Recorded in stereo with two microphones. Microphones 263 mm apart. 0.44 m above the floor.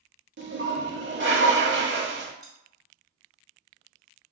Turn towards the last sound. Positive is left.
turn(degrees=25)  # may be behind; listen again after turning